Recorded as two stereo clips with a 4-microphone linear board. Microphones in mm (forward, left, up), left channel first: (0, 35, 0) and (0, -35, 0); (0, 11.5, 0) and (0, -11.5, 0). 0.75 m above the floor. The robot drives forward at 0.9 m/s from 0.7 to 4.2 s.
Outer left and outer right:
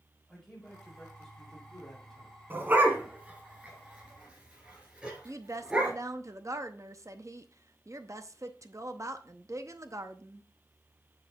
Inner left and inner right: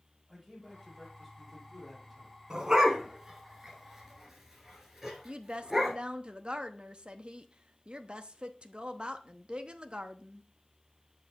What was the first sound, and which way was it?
A man speaking, 5° left (ahead or behind).